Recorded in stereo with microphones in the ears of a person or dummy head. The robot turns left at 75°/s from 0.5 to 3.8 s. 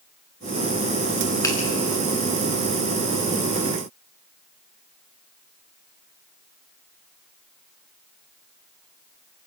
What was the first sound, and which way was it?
A finger snap, 20° left (ahead or behind).